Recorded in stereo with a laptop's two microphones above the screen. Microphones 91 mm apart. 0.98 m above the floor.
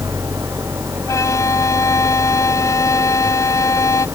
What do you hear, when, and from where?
0.0 s an engine running: 30° right (ahead or behind)
1.1 s a violin: 35° left (ahead or behind)